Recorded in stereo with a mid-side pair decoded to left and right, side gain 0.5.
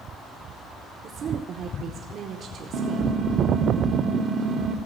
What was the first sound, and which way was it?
A woman speaking, 55° right.